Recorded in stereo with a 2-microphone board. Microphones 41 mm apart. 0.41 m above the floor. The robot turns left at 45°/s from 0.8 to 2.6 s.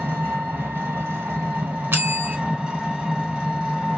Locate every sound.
0.0 s an engine running: 75° right, 1.4 m; by 4.0 s 160° right, 1.4 m
1.9 s a bell: 60° right (ahead or behind), 0.7 m; by 2.4 s 40° right (ahead or behind), 0.7 m